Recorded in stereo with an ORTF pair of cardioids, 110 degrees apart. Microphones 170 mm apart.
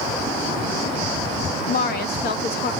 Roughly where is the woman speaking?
Ahead left.